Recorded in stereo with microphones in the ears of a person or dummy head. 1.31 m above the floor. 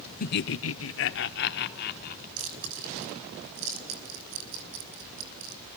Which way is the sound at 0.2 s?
45° left (ahead or behind).